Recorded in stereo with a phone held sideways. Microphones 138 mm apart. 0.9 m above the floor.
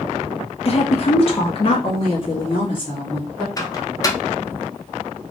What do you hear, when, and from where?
0.7 s a woman speaking: 45° left (ahead or behind), 0.6 m; by 3.5 s 35° left (ahead or behind), 2 m
3.6 s a microwave: 25° left (ahead or behind), 0.7 m